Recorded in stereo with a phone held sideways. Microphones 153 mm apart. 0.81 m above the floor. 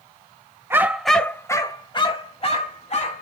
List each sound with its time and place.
0.7 s a dog barking: 15° right (ahead or behind), 0.6 m; by 3.2 s 50° left (ahead or behind), 1.4 m